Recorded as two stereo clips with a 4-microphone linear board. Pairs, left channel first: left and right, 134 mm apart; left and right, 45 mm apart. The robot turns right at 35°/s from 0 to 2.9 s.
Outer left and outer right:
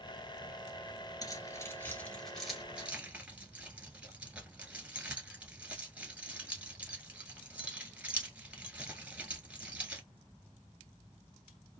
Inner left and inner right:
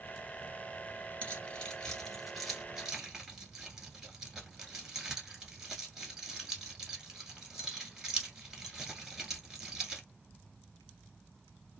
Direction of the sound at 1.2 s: 30° left (ahead or behind).